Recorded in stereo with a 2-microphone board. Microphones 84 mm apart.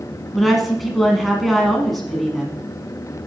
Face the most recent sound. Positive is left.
turn(degrees=0)  # may be behind; listen again after turning